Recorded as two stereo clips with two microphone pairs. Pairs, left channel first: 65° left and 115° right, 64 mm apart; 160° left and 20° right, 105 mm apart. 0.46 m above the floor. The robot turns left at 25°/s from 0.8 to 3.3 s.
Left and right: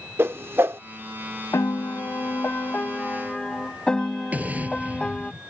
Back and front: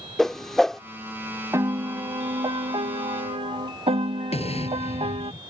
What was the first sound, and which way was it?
A whoosh, 110° right.